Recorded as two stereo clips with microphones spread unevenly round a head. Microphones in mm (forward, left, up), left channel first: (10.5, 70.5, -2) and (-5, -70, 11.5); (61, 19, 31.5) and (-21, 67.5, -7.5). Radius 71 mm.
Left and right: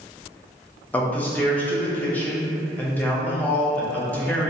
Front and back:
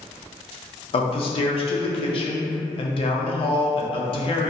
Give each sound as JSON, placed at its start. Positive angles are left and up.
{"t": 0.9, "sound": "a man speaking", "azimuth_deg": 10, "distance_m": 0.5}